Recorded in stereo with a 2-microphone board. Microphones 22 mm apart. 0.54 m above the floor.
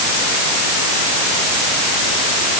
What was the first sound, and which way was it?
Only background noise.